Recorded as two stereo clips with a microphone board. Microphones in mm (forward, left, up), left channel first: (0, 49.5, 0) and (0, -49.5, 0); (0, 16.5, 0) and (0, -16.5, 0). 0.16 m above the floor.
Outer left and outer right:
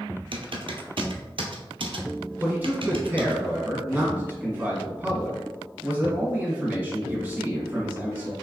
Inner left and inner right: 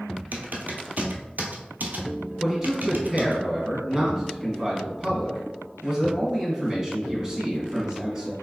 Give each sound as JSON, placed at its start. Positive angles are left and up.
{"t": 0.3, "sound": "typing on a keyboard", "side_deg": -65, "distance_m": 0.6}
{"t": 2.4, "sound": "a man speaking", "side_deg": -20, "distance_m": 1.3}